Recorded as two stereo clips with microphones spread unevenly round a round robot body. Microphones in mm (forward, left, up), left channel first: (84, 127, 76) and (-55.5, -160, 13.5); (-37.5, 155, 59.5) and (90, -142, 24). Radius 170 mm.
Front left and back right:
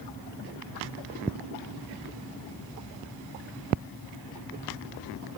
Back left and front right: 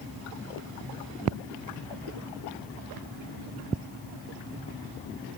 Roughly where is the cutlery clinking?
I don't hear cutlery clinking.